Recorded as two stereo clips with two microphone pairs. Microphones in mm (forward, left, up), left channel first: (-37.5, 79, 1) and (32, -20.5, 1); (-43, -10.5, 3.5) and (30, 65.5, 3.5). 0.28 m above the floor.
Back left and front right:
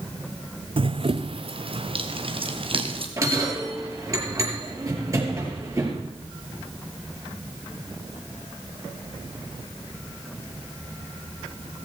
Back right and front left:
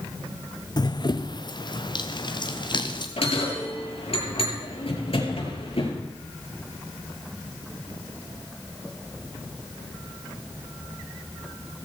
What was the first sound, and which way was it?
Running footsteps, 90° right.